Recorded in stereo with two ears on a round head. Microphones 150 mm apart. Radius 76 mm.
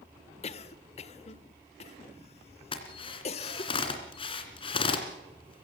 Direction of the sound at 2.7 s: 35° left (ahead or behind).